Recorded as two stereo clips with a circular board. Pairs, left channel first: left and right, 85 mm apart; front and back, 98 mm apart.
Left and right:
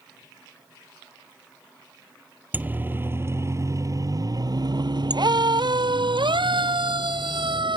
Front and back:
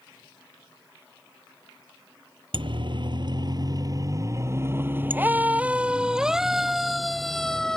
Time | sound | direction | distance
2.5 | a siren | 155° right | ?